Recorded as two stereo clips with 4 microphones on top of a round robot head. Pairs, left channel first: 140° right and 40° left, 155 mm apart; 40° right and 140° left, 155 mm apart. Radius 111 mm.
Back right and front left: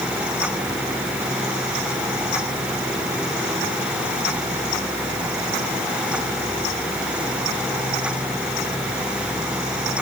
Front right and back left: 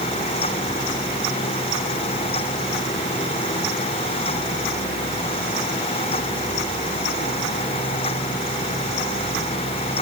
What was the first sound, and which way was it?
Only background noise.